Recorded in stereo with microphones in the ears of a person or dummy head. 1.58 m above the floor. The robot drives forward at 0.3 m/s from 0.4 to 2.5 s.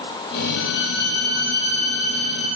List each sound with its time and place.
0.6 s a violin: 65° left (ahead or behind), 0.7 m; by 2.6 s 35° left (ahead or behind), 1.0 m